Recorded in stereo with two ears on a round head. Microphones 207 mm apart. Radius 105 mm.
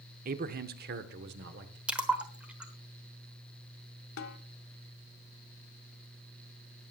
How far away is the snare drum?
About 1.3 m.